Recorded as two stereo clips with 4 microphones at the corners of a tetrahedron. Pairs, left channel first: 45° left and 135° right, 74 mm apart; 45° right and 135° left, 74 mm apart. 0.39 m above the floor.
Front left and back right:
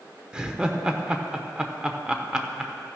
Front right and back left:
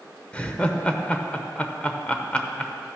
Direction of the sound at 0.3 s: 80° right.